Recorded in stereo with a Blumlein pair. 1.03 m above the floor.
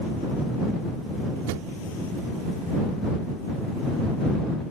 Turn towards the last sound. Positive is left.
turn(degrees=-50)